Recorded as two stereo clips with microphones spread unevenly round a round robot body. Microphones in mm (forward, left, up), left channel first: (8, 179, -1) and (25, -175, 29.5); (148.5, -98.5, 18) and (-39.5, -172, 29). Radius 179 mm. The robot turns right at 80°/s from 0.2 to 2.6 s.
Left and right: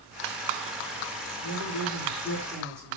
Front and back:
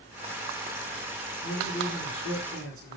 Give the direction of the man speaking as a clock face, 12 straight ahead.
9 o'clock.